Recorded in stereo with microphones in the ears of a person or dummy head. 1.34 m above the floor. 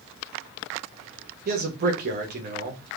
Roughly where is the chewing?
No chewing in this recording.